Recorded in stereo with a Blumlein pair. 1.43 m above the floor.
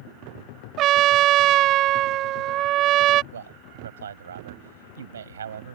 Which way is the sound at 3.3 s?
65° right.